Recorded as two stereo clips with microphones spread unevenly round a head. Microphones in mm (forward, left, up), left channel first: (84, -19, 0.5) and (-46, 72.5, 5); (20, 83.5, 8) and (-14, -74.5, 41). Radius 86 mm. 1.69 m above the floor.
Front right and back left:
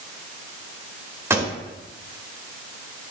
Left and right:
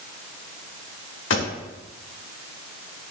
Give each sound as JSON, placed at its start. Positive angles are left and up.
{"t": 1.3, "sound": "a pop", "azimuth_deg": 70, "distance_m": 1.7}